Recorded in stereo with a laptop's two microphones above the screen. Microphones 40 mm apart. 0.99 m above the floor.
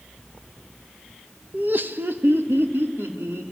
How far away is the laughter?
About 1.0 m.